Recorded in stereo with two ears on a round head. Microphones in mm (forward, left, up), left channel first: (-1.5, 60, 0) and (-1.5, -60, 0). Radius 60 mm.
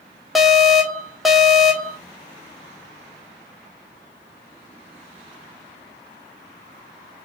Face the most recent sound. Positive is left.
turn(degrees=0)  # may be behind; listen again after turning